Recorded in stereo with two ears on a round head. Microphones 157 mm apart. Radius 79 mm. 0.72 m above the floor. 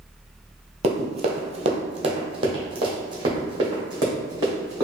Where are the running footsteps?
35° right (ahead or behind), 0.8 m; by 4.8 s 20° right (ahead or behind), 2.5 m.